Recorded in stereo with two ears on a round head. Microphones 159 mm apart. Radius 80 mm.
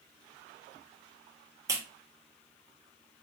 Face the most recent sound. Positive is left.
turn(degrees=-20)  # may be behind; listen again after turning